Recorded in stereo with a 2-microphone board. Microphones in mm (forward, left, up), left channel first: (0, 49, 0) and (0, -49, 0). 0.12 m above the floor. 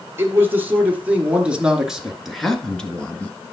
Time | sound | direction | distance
0.2 | a man speaking | 25° right (ahead or behind) | 2.5 m